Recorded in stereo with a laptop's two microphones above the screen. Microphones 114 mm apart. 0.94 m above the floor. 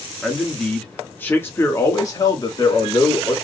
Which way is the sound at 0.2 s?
Centre (ahead or behind).